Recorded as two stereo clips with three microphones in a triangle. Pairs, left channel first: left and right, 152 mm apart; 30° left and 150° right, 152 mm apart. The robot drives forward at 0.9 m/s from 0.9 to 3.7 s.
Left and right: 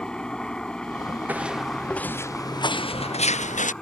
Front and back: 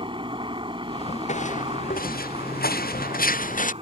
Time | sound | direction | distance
0.0 | a helicopter | 170° left | ?
1.3 | footsteps | 10° right | ?